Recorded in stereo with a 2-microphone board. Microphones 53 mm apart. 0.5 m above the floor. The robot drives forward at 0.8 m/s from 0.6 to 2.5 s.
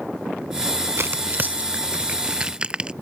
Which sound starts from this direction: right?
Tearing paper, at 1.0 s.